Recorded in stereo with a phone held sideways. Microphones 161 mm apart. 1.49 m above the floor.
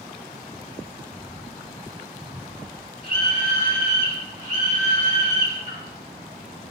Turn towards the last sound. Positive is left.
turn(degrees=-45)  # may be behind; listen again after turning